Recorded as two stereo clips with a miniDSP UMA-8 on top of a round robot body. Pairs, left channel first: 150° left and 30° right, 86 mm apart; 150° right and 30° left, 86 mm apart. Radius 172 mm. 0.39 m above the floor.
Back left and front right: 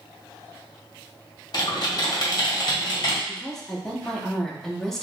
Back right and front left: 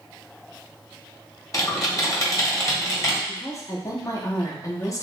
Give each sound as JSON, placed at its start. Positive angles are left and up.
{"t": 1.5, "sound": "typing on a keyboard", "azimuth_deg": 170, "distance_m": 1.5}
{"t": 3.3, "sound": "a woman speaking", "azimuth_deg": -130, "distance_m": 1.1}